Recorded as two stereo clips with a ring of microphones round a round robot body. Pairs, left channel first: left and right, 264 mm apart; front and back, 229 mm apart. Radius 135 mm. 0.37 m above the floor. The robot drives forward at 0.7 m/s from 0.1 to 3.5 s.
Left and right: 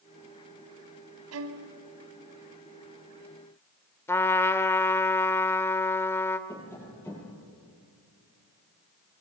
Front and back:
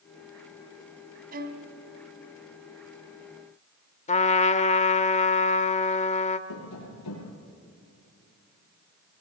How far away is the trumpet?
About 1.2 m.